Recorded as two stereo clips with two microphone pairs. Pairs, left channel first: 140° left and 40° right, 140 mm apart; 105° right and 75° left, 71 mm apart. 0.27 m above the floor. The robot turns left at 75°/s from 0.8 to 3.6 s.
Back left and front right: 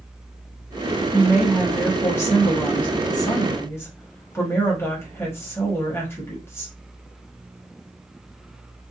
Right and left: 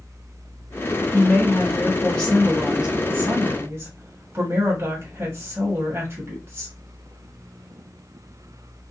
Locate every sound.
1.1 s a woman speaking: 90° right, 1.2 m; by 6.8 s 85° left, 1.2 m